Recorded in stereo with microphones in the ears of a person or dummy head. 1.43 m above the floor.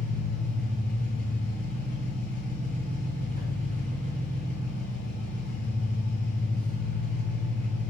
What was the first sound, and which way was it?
An engine running, 50° right (ahead or behind).